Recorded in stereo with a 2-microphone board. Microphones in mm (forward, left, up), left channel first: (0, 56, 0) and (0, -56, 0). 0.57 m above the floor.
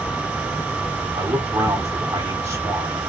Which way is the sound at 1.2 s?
25° right (ahead or behind).